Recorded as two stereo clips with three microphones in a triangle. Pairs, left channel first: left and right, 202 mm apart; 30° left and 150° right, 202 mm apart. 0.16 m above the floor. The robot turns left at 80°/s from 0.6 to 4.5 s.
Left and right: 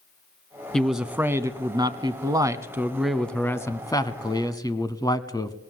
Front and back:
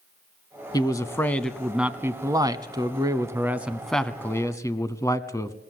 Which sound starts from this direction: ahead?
A man speaking, at 0.7 s.